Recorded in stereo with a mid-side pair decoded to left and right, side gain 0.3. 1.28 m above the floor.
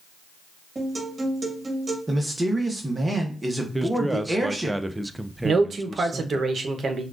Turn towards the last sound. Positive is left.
turn(degrees=-60)